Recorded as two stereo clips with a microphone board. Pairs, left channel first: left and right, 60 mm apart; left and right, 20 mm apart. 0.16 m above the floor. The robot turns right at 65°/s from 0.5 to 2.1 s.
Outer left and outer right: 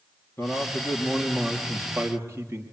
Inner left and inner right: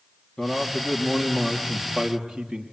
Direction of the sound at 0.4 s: 120° left.